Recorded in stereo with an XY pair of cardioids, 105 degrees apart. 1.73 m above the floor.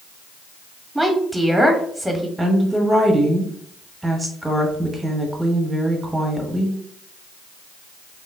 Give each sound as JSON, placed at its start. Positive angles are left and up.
{"t": 0.9, "sound": "a woman speaking", "azimuth_deg": -5, "distance_m": 1.1}
{"t": 2.4, "sound": "a woman speaking", "azimuth_deg": -10, "distance_m": 1.1}